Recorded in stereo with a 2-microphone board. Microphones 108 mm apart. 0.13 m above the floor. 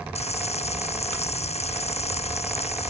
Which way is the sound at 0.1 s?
80° left.